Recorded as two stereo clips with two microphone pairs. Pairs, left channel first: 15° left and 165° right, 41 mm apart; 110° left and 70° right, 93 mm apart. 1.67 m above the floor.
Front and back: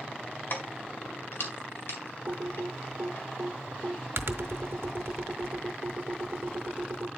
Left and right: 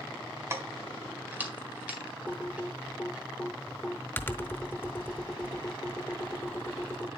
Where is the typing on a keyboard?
175° left, 0.7 m.